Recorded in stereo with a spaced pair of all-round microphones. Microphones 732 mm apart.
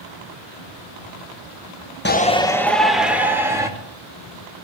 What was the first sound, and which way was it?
A shout, 15° left (ahead or behind).